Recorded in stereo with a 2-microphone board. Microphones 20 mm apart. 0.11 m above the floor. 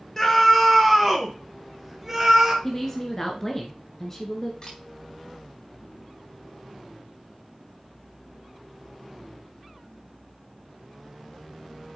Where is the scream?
20° left (ahead or behind), 1.7 m; by 2.5 s 10° right (ahead or behind), 2 m.